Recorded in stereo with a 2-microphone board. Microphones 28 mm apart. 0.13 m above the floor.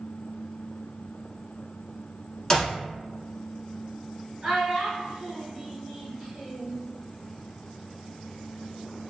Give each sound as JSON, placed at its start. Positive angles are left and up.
{"t": 2.5, "sound": "a clap", "side_deg": 20, "distance_m": 1.0}
{"t": 4.4, "sound": "a child speaking", "side_deg": -30, "distance_m": 1.6}